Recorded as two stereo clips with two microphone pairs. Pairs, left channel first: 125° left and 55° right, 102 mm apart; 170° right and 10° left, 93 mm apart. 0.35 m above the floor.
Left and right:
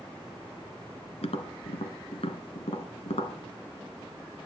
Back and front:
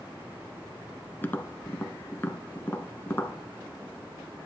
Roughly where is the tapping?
Behind left.